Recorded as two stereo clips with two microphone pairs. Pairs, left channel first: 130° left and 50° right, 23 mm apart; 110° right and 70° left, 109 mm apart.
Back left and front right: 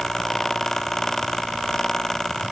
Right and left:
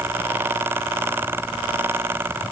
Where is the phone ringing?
No phone ringing in this recording.